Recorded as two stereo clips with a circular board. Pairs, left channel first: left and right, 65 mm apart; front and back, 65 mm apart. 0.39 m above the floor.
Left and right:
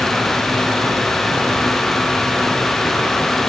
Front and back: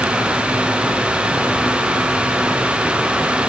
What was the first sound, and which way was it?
Only background noise.